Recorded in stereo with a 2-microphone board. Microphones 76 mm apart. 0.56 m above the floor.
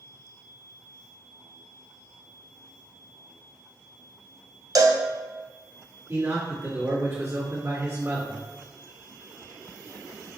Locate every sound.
4.8 s a cowbell: 55° right (ahead or behind), 0.5 m
6.1 s a man speaking: 40° right (ahead or behind), 1.6 m